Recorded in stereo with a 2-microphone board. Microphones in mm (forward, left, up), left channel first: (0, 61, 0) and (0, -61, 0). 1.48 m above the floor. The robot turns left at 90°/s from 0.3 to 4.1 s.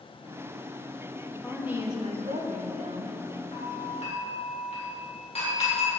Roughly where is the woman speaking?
Ahead.